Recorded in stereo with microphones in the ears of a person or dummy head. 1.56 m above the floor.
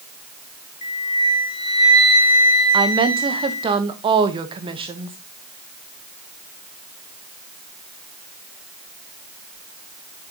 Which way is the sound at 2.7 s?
25° right (ahead or behind).